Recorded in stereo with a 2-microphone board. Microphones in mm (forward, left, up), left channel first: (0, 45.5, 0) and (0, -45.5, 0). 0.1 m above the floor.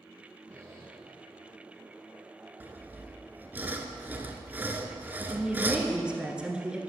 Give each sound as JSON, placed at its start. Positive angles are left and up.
{"t": 0.5, "sound": "a squeak", "side_deg": -30, "distance_m": 2.5}
{"t": 2.6, "sound": "sawing", "side_deg": -20, "distance_m": 0.7}
{"t": 5.3, "sound": "a woman speaking", "side_deg": -10, "distance_m": 1.1}